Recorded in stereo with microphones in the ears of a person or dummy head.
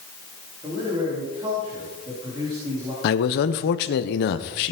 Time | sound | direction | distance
0.6 | a man speaking | 25° right (ahead or behind) | 4 m
3.0 | a man speaking | 55° left (ahead or behind) | 0.9 m